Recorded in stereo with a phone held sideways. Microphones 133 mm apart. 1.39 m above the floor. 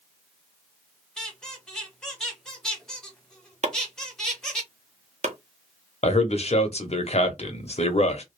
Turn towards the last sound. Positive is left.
turn(degrees=50)  # may be behind; listen again after turning